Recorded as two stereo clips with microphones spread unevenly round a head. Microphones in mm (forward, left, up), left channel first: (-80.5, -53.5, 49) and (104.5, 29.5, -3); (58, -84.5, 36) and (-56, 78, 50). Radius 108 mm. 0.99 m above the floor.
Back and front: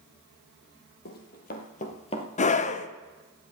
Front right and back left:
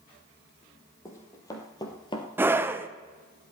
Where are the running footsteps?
130° right, 2.5 m; by 2.3 s 120° right, 1.3 m.